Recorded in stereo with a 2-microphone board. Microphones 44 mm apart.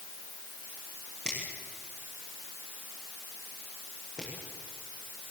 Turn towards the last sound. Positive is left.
turn(degrees=15)  # may be behind; listen again after turning